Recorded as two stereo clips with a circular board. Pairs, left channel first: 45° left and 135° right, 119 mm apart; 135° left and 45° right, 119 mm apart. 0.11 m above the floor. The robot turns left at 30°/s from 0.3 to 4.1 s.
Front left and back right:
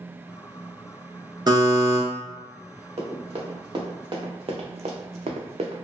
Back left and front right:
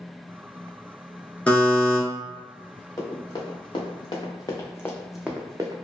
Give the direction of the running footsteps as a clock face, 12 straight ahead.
6 o'clock.